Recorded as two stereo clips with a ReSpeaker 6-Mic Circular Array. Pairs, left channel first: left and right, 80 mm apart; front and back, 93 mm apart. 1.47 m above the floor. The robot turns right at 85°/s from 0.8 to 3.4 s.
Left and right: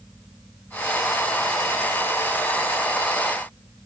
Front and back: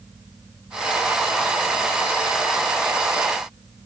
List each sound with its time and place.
Only background noise.